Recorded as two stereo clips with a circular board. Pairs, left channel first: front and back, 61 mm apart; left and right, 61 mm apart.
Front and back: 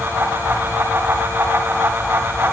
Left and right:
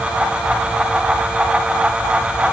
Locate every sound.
Only background noise.